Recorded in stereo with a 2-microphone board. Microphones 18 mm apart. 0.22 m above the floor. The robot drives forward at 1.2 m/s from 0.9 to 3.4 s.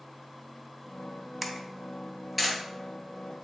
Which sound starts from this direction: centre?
A camera shutter, at 1.4 s.